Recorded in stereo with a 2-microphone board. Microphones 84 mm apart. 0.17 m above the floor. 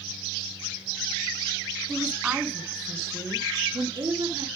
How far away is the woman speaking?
About 1.4 m.